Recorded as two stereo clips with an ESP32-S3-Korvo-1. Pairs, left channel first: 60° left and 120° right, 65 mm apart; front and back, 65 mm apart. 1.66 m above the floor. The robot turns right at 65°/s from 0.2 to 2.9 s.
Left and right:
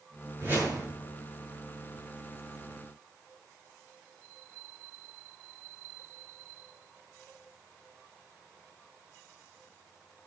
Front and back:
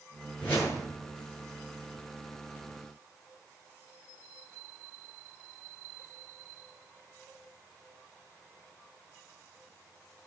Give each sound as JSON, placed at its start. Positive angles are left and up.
{"t": 0.4, "sound": "a whoosh", "azimuth_deg": -70, "distance_m": 7.5}